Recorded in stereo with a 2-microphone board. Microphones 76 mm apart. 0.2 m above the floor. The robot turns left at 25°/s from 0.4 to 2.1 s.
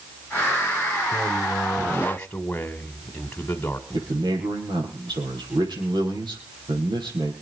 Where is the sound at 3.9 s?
75° right (ahead or behind), 7 m.